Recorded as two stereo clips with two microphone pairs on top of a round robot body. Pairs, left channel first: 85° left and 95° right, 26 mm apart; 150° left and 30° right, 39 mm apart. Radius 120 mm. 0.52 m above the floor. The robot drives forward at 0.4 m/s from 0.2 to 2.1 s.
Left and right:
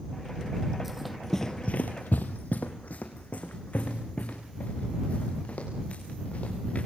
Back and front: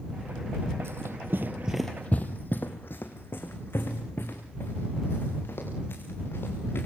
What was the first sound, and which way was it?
Running footsteps, 15° right.